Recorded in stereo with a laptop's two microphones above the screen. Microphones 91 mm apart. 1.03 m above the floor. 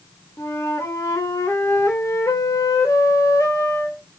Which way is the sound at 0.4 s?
30° left (ahead or behind).